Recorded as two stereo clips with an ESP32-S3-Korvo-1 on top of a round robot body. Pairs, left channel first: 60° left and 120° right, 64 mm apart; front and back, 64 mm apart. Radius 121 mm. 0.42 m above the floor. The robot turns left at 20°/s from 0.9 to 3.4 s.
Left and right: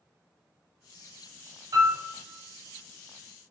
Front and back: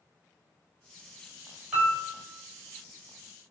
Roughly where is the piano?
Right.